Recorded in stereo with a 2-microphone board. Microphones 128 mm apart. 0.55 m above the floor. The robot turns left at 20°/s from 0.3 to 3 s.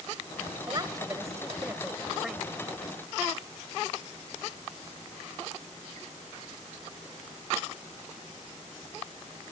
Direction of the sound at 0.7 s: 35° right (ahead or behind).